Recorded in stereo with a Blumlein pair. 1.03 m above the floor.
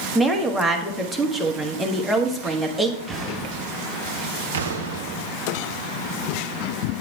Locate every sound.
0.1 s a woman speaking: 5° right, 1.3 m
3.1 s an explosion: 10° right, 4 m
4.5 s an explosion: 60° right, 0.8 m